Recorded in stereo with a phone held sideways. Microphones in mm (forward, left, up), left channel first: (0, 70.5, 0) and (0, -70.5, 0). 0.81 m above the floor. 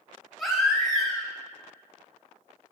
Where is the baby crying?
Centre (ahead or behind), 1.8 m.